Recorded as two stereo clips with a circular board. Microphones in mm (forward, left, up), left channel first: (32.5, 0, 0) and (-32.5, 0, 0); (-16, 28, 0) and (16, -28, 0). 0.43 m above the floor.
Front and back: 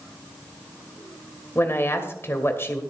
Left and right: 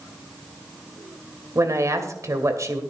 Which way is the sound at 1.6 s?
45° right.